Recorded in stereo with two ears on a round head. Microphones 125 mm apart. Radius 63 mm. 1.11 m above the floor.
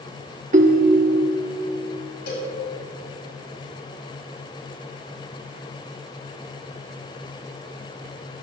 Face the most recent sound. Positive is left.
turn(degrees=80)